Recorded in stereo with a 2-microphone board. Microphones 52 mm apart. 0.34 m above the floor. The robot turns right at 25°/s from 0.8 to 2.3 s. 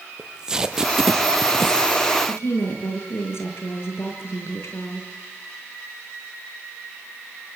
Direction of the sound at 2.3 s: 60° left (ahead or behind).